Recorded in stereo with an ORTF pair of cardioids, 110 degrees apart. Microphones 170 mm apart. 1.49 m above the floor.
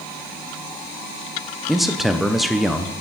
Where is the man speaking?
Straight ahead, 0.7 m.